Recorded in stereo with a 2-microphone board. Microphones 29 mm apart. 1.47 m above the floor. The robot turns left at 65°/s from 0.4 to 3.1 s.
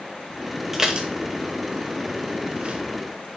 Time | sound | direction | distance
0.7 | dishes clattering | 5° right (ahead or behind) | 1.1 m